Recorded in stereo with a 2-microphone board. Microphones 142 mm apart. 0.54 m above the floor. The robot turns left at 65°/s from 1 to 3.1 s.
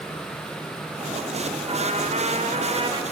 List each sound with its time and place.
1.7 s a trumpet: 50° right, 2 m; by 3.0 s 140° right, 2 m